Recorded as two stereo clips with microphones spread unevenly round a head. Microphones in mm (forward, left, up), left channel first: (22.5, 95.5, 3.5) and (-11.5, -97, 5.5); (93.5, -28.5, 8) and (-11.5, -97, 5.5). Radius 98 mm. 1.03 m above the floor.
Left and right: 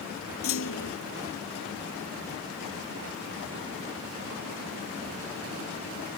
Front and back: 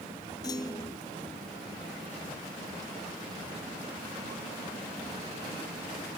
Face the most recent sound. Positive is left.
turn(degrees=105)